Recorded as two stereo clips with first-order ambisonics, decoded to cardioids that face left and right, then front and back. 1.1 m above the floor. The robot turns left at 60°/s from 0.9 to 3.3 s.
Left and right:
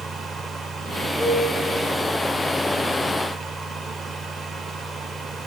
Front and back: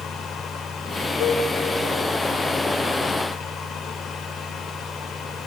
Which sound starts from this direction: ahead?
A cowbell, at 1.2 s.